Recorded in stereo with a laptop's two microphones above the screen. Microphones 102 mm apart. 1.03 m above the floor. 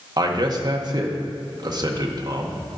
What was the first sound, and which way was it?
A man speaking, 40° right (ahead or behind).